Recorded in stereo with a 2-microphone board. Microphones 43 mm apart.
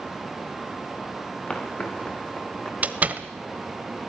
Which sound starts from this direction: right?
A door slam, at 2.8 s.